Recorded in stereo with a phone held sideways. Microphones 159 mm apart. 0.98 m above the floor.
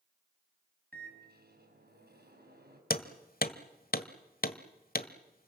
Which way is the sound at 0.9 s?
85° right.